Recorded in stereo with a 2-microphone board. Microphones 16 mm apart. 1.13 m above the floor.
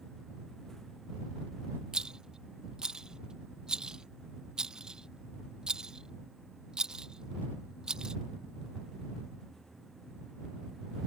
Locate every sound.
1.9 s a rattle: 45° right (ahead or behind)